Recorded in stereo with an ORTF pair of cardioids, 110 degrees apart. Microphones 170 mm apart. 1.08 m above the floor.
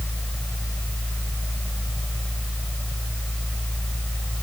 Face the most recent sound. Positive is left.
turn(degrees=5)